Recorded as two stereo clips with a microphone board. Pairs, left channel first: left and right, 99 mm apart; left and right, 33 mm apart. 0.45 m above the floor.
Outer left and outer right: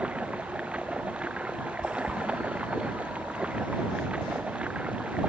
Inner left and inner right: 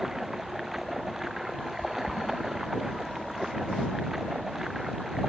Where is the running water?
10° right (ahead or behind).